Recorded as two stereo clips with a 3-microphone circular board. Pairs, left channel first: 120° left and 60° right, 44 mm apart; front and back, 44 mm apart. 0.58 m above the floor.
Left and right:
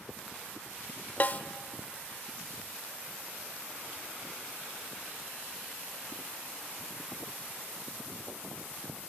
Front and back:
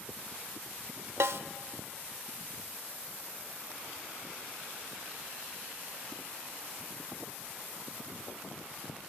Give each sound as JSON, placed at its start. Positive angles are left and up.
{"t": 1.2, "sound": "a snare drum", "azimuth_deg": 170, "distance_m": 0.6}